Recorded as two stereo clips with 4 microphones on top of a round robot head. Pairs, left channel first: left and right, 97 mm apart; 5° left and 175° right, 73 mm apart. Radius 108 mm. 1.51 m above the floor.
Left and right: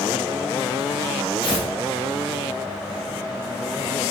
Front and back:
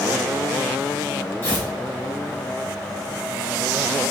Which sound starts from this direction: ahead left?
Tearing paper, at 1.4 s.